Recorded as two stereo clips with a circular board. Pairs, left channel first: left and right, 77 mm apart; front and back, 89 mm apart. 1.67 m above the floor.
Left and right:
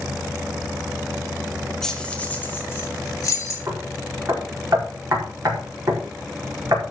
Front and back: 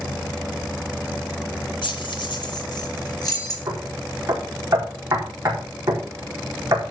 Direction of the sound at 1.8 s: 5° left.